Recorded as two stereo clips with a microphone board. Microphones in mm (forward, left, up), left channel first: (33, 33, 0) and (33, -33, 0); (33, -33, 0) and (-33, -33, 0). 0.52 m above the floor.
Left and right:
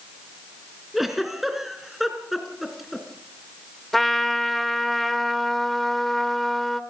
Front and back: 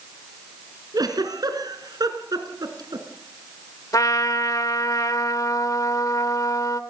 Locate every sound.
0.9 s a giggle: 175° right, 2.5 m
3.9 s a trumpet: 5° left, 1.3 m